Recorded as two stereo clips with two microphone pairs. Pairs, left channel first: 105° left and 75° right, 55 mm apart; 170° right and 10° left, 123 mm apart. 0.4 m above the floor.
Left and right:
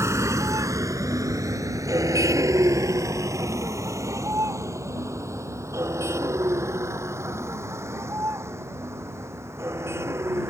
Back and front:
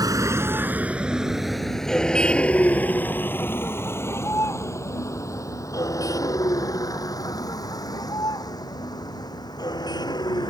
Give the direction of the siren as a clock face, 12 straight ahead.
I don't hear a siren.